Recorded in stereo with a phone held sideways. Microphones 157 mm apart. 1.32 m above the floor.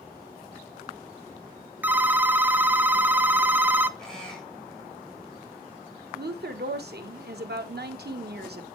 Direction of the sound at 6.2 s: 85° right.